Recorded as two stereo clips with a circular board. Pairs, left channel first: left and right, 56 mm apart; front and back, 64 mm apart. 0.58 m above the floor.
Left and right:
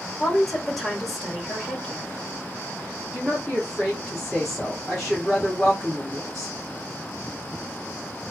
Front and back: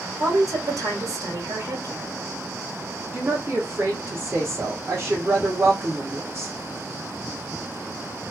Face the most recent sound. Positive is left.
turn(degrees=180)